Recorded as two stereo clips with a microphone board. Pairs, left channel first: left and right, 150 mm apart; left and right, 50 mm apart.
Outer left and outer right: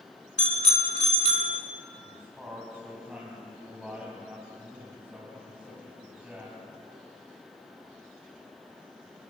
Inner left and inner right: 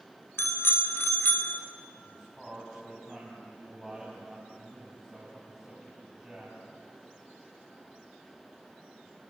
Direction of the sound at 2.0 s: 5° right (ahead or behind).